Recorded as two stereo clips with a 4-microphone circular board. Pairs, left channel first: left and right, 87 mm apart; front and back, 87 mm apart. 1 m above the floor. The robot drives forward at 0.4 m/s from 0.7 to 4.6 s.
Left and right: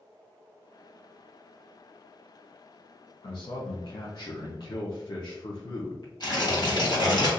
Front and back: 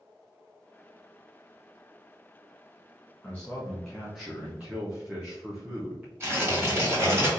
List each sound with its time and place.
3.2 s a man speaking: 65° left, 0.8 m; by 7.2 s 110° left, 0.7 m
6.2 s tearing paper: 120° left, 1.8 m